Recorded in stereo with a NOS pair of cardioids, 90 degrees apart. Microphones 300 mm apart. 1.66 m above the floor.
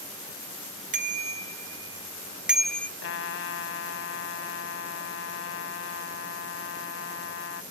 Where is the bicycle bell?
25° right; by 2.9 s 10° left.